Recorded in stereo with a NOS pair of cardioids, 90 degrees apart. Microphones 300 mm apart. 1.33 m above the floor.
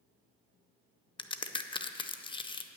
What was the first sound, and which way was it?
A crack, 15° left.